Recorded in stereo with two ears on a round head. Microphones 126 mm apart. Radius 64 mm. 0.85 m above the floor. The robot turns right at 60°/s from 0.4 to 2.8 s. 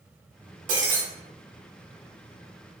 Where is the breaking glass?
60° right (ahead or behind), 1.4 m; by 1.0 s 80° right, 1.4 m.